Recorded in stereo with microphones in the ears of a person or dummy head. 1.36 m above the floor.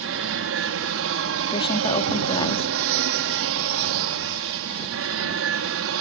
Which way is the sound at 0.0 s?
65° right (ahead or behind).